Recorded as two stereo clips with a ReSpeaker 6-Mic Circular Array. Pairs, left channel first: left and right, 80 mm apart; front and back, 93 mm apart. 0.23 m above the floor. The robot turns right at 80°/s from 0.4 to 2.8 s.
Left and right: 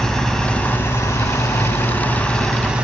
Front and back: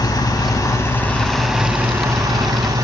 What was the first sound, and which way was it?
An engine running, 10° left.